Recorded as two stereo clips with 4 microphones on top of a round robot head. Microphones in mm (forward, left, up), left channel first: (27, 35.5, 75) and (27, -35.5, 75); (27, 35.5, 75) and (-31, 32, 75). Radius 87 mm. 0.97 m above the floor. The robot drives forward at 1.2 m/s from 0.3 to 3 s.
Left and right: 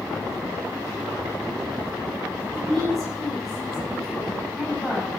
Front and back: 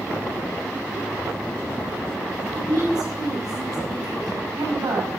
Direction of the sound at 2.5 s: Straight behind.